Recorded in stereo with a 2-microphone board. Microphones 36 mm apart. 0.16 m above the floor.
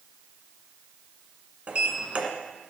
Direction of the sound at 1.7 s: 35° right (ahead or behind).